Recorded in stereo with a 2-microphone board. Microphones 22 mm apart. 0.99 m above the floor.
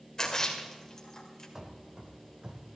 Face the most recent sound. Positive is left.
turn(degrees=-50)  # may be behind; listen again after turning